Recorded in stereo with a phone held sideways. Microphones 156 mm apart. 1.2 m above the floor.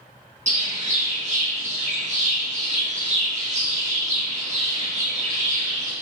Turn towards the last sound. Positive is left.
turn(degrees=-50)  # may be behind; listen again after turning